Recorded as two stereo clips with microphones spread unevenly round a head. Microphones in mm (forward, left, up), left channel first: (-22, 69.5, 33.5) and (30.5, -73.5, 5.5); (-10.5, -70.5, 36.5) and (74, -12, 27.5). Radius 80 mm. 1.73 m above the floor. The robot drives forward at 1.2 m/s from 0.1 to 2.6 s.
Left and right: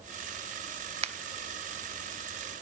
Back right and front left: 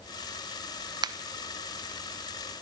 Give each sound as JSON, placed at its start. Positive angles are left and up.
{"t": 1.0, "sound": "a finger snap", "azimuth_deg": -15, "distance_m": 0.8}